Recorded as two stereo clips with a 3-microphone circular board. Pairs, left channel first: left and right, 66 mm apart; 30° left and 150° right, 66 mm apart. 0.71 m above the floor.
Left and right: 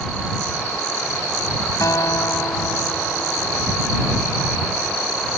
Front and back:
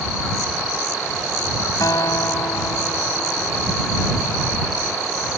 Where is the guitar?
55° left.